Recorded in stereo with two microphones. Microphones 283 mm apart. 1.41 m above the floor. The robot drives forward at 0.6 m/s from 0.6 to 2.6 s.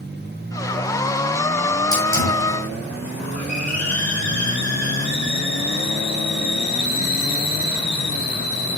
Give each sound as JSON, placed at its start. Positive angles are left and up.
{"t": 1.9, "sound": "a hiss", "side_deg": 70, "distance_m": 8.0}